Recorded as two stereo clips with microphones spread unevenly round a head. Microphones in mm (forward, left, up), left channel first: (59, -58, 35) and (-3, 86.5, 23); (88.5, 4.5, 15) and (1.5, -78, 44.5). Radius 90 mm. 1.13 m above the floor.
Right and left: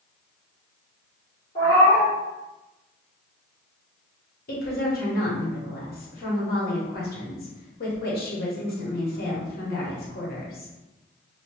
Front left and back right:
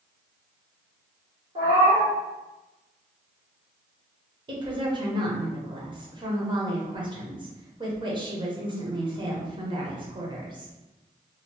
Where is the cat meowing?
125° right, 1.5 m.